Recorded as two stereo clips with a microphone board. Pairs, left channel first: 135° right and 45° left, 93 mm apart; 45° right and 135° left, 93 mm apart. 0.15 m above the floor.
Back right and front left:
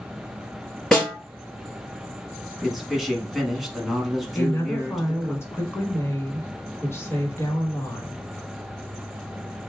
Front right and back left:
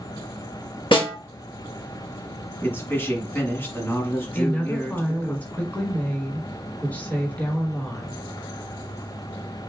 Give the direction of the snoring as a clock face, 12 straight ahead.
No snoring in this recording.